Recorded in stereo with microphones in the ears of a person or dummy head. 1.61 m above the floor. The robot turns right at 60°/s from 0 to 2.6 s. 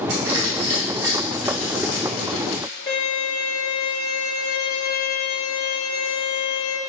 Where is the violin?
25° left (ahead or behind), 2.5 m.